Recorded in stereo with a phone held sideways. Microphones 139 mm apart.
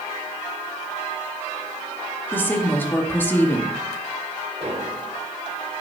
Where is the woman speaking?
15° left (ahead or behind), 2 m.